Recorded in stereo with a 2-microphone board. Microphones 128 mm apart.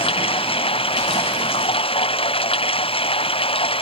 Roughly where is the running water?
Left.